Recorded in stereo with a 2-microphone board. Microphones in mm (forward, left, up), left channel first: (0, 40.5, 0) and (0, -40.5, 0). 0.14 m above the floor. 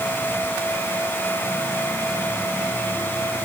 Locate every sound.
Only background noise.